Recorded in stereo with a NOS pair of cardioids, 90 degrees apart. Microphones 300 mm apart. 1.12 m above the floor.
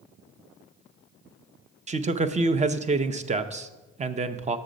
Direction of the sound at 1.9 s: 25° right.